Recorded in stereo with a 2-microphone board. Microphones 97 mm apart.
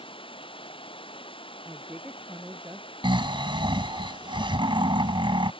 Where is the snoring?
60° right (ahead or behind).